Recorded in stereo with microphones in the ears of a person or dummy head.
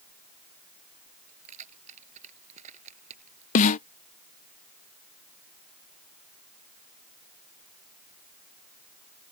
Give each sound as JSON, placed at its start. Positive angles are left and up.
{"t": 1.3, "sound": "keys jangling", "side_deg": -35}
{"t": 3.5, "sound": "a snare drum", "side_deg": 45}